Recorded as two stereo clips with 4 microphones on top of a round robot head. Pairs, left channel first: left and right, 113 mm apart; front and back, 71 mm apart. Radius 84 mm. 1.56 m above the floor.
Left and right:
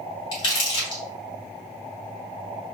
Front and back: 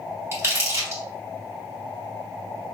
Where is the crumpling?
125° left, 2 m.